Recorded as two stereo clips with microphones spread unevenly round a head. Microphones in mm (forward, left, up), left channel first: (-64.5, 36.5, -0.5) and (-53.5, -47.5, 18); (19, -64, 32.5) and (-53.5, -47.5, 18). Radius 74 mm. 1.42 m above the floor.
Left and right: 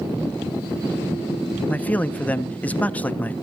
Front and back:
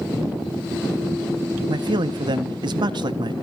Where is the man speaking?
170° left, 1.3 m.